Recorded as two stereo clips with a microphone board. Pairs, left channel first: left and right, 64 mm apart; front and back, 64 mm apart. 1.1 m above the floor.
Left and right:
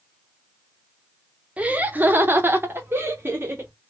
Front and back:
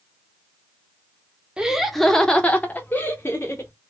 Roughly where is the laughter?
Behind right.